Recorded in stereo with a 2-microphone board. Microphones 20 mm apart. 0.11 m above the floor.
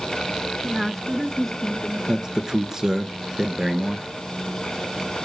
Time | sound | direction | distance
0.6 | a woman speaking | 15° right (ahead or behind) | 1.1 m
2.1 | a man speaking | 30° right (ahead or behind) | 1.4 m